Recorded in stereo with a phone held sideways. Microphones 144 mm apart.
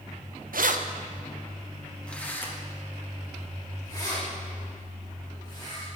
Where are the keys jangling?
75° right (ahead or behind), 0.5 m; by 5.9 s 30° left (ahead or behind), 3.5 m.